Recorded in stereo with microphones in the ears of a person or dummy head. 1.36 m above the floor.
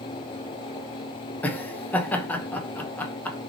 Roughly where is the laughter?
Centre.